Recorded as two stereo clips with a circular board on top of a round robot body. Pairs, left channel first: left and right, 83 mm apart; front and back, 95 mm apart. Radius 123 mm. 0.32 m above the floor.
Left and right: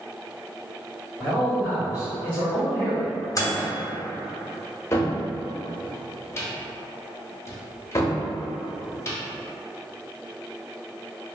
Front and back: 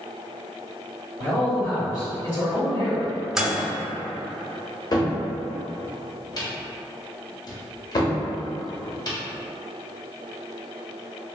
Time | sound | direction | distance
1.2 | a man speaking | 15° right | 1.9 m
3.4 | a microwave | 100° left | 0.9 m
4.9 | a cupboard door | 40° left | 0.8 m